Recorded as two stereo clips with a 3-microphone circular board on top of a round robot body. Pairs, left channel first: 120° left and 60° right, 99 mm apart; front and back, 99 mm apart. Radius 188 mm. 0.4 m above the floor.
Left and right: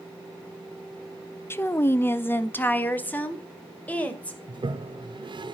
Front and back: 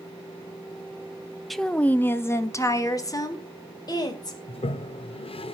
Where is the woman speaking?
90° left, 0.8 m; by 4.4 s 45° left, 2.5 m.